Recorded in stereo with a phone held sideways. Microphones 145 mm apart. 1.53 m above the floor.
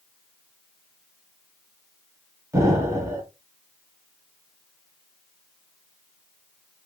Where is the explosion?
20° right (ahead or behind), 1.1 m.